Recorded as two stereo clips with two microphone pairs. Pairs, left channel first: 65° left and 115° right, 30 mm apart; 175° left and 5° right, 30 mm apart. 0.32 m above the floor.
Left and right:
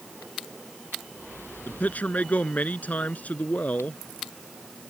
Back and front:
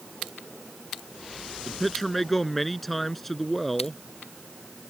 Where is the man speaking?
90° left.